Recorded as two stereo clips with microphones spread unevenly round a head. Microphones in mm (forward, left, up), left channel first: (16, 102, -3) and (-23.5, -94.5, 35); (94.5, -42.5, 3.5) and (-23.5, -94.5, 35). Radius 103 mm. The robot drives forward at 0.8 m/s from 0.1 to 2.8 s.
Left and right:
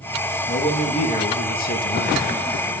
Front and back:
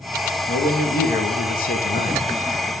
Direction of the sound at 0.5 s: 15° left.